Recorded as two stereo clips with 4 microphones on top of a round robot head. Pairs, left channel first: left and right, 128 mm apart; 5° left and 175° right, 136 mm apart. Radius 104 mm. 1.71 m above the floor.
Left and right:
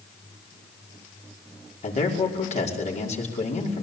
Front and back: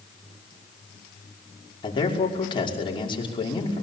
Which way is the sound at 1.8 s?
60° left.